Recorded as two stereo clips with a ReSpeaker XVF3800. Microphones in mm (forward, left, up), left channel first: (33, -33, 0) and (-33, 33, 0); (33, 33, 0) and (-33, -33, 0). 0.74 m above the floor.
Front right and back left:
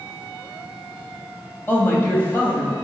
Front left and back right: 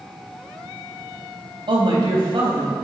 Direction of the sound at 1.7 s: 110° right.